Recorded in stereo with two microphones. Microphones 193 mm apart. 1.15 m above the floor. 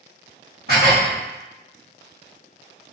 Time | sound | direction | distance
0.7 | dishes clattering | 55° right (ahead or behind) | 1.2 m